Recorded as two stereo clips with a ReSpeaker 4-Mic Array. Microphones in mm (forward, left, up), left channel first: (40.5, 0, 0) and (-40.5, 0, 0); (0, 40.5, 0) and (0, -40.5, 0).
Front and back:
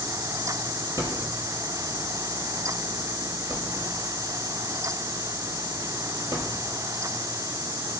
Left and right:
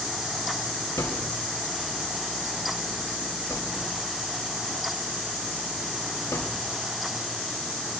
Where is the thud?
135° left, 3.5 m.